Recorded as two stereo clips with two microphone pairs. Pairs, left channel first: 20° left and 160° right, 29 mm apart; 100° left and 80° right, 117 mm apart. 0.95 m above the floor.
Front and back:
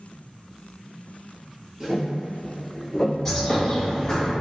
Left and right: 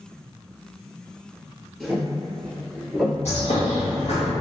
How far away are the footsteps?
About 1.0 m.